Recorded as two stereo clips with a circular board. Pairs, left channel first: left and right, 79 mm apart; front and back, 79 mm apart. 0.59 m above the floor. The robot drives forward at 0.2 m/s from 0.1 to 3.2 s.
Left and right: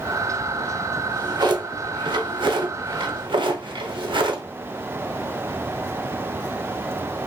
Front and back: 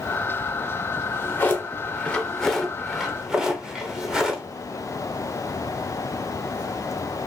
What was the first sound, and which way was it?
A drawer, 60° right.